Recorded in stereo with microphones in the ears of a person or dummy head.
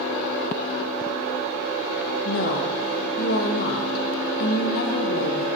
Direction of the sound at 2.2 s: 55° left (ahead or behind).